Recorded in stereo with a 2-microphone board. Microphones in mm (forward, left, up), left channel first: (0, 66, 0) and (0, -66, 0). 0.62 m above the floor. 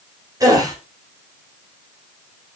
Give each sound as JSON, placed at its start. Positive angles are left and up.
{"t": 0.4, "sound": "a gasp", "side_deg": -30, "distance_m": 3.0}